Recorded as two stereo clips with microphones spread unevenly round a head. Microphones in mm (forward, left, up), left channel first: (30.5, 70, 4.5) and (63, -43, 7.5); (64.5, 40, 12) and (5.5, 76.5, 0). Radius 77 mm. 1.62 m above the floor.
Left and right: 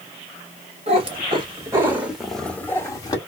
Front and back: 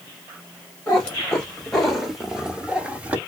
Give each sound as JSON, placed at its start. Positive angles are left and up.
{"t": 0.9, "sound": "a cat meowing", "azimuth_deg": -90, "distance_m": 1.4}